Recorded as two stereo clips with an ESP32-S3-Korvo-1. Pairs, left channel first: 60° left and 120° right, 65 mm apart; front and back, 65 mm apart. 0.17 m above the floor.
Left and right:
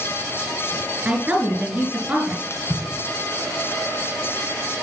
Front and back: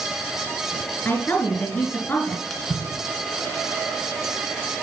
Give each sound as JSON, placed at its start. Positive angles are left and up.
{"t": 1.1, "sound": "a woman speaking", "azimuth_deg": -55, "distance_m": 2.0}
{"t": 2.5, "sound": "a splash", "azimuth_deg": 85, "distance_m": 2.0}